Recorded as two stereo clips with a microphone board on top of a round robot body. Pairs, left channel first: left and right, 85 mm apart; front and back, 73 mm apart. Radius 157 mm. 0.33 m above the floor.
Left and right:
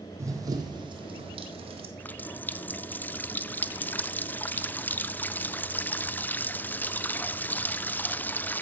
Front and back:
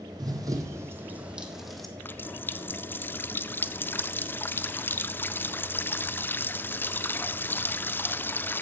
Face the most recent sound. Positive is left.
turn(degrees=35)